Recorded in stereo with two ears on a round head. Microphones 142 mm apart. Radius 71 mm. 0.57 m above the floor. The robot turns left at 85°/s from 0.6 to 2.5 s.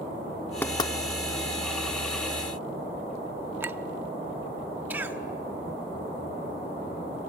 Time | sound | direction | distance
0.6 | knocking | 10° left (ahead or behind) | 0.6 m
3.6 | a clink | 15° right (ahead or behind) | 0.5 m
4.9 | a cough | 10° right (ahead or behind) | 1.2 m